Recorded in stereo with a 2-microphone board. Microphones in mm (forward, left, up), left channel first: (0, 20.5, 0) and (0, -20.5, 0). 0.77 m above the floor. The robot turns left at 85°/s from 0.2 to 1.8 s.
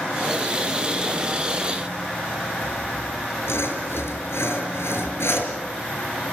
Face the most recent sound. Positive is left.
turn(degrees=85)